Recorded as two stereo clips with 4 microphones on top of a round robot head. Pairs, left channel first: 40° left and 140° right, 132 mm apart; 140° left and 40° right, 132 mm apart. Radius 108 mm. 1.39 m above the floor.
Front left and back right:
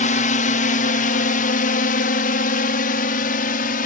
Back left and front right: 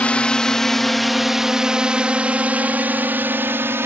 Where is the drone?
60° left; by 3.9 s 30° left.